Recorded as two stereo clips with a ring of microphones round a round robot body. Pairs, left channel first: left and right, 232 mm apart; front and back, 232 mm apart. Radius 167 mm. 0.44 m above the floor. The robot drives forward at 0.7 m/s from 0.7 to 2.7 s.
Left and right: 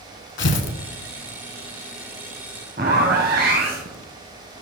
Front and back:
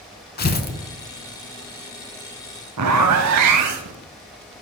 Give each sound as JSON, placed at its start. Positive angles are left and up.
{"t": 0.4, "sound": "tearing paper", "azimuth_deg": 50, "distance_m": 1.0}
{"t": 2.8, "sound": "a zipper", "azimuth_deg": -155, "distance_m": 0.5}